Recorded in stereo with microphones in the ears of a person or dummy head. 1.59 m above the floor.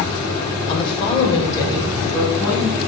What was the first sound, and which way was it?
A woman speaking, 30° left (ahead or behind).